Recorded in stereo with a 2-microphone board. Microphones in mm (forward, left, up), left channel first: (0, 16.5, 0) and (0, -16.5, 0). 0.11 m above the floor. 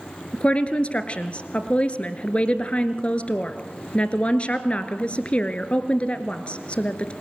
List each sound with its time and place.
0.3 s a woman speaking: 35° left (ahead or behind), 1.4 m